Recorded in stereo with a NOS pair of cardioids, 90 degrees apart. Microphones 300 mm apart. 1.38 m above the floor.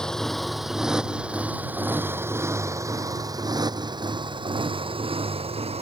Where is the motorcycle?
Straight ahead; by 5.8 s 20° right.